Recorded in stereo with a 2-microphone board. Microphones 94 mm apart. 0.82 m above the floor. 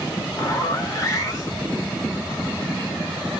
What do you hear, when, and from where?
0.4 s a zipper: 35° left (ahead or behind), 1.2 m